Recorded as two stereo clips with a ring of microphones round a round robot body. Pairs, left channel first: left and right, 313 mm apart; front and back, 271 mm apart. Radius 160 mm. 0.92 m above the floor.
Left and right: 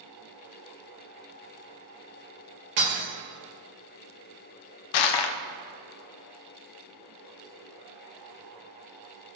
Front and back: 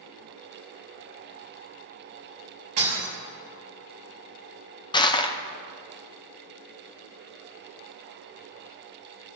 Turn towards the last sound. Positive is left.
turn(degrees=75)